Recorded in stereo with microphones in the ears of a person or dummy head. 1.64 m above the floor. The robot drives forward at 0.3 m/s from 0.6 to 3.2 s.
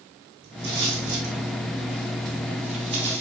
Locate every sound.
0.4 s footsteps: 45° right (ahead or behind), 5 m; by 3.2 s 25° right (ahead or behind), 2.5 m